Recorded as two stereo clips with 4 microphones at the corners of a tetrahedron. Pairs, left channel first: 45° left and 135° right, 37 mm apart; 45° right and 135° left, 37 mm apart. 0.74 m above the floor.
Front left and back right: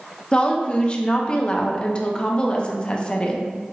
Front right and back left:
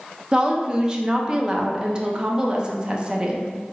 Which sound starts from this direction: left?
A woman speaking, at 0.3 s.